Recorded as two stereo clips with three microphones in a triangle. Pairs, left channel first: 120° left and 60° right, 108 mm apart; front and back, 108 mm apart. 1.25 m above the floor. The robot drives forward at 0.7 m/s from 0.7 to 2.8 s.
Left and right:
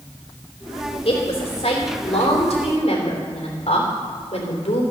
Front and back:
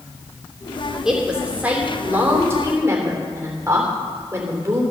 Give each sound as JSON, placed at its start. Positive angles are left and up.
{"t": 1.1, "sound": "a woman speaking", "azimuth_deg": 95, "distance_m": 3.0}